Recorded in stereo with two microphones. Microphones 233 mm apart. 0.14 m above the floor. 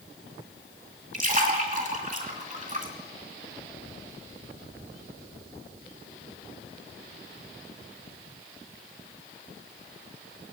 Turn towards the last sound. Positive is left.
turn(degrees=-35)  # may be behind; listen again after turning